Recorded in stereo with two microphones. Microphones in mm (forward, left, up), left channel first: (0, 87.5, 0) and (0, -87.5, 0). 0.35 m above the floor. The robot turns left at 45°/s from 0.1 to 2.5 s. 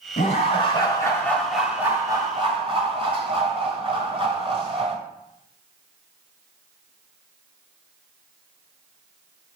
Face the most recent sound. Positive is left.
turn(degrees=-40)